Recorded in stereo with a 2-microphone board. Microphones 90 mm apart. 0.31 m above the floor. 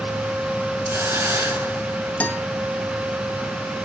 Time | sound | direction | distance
0.9 | a hiss | 25° right (ahead or behind) | 4 m
2.2 | a guitar | 15° left (ahead or behind) | 1.7 m